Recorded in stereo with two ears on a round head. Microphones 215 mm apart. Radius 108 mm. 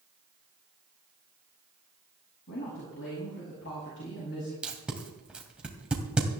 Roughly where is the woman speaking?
Left.